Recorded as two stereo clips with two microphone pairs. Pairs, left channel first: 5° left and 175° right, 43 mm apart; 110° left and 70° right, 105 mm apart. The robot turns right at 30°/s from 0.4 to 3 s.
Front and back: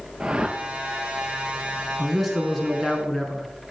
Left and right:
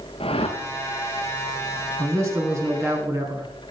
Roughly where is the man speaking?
Right.